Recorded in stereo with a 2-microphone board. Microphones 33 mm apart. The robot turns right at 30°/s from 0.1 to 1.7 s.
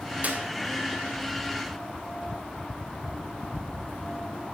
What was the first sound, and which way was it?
A clap, 50° right (ahead or behind).